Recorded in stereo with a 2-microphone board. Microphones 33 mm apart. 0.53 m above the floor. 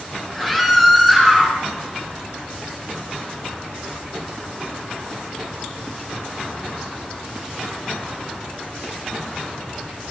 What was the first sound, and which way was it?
A scream, centre (ahead or behind).